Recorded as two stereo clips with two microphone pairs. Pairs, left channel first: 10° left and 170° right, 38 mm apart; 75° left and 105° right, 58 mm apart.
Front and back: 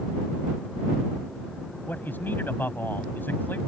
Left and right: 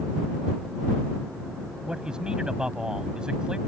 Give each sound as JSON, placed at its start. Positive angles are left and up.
{"t": 1.8, "sound": "a man speaking", "azimuth_deg": -25}